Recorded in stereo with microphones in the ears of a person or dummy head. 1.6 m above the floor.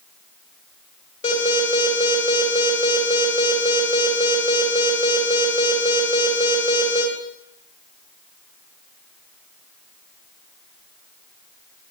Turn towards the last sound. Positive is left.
turn(degrees=40)  # may be behind; listen again after turning